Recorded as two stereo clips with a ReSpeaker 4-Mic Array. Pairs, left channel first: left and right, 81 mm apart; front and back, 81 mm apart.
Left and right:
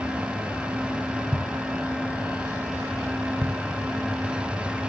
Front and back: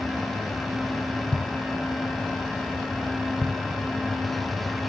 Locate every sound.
1.3 s a thud: 80° right, 2 m